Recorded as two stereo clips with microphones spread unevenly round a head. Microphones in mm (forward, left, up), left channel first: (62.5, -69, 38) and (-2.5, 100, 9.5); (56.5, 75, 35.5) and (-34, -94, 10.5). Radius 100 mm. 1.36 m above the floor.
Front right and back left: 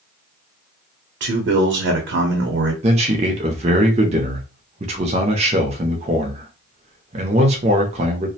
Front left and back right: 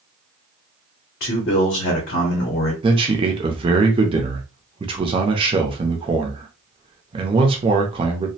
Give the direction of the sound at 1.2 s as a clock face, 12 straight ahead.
9 o'clock.